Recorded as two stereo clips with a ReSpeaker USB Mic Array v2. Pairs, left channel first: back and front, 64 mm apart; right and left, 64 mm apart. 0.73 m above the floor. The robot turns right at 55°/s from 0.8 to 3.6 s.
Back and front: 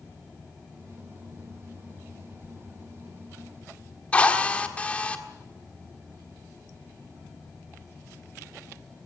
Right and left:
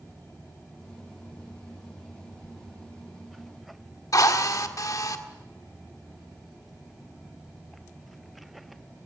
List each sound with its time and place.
2.4 s a sliding door: 125° left, 3 m; by 2.5 s 130° left, 3 m
4.1 s a drill: 110° right, 1.6 m